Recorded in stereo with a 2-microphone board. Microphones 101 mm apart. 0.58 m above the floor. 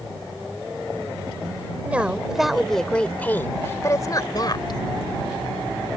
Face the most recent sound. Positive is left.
turn(degrees=50)  # may be behind; listen again after turning